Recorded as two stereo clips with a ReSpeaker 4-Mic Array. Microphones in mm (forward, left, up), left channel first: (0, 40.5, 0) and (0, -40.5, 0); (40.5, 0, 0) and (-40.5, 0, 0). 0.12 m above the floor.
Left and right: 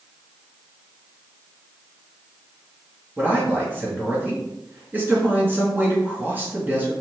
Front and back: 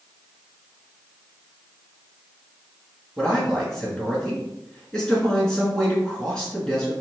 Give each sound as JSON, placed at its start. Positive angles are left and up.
{"t": 3.2, "sound": "a man speaking", "azimuth_deg": -70, "distance_m": 1.7}